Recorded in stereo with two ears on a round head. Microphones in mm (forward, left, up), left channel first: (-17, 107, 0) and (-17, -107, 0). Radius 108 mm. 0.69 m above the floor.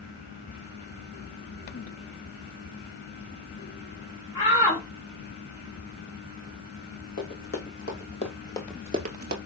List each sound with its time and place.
4.3 s a shout: 15° left (ahead or behind), 2 m
7.2 s running footsteps: 40° left (ahead or behind), 2.5 m; by 9.4 s 50° right (ahead or behind), 1.0 m